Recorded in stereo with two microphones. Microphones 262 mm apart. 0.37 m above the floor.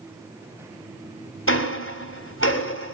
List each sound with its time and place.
1.5 s ticking: 50° left (ahead or behind), 2 m